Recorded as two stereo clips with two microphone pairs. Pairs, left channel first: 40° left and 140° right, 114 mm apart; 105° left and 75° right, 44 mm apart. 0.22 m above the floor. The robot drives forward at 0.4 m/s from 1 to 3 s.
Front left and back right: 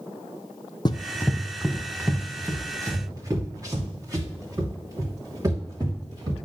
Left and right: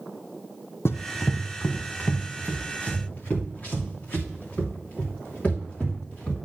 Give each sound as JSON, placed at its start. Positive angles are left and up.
{"t": 0.8, "sound": "running footsteps", "azimuth_deg": 85, "distance_m": 0.6}